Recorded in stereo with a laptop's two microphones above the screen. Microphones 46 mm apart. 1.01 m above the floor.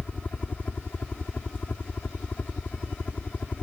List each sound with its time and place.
0.0 s a helicopter: 35° left (ahead or behind)